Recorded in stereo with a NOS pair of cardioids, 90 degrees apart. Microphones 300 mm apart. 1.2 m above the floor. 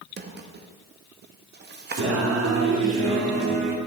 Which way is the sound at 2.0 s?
50° right.